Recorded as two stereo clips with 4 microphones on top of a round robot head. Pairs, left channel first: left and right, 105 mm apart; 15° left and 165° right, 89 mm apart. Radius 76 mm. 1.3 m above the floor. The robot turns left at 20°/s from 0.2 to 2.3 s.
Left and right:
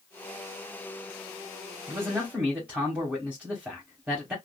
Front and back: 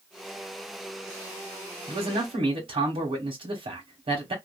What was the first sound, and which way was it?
A man speaking, 160° right.